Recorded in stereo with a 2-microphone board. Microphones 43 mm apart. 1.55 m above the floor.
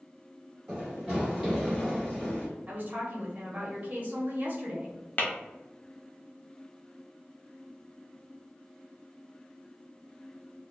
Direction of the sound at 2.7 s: 40° right (ahead or behind).